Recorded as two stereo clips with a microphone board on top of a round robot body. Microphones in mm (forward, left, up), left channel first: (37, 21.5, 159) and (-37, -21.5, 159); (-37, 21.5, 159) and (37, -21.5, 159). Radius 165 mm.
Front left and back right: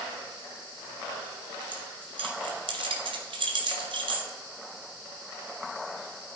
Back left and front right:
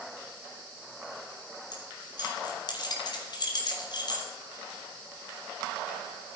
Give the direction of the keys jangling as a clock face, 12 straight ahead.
6 o'clock.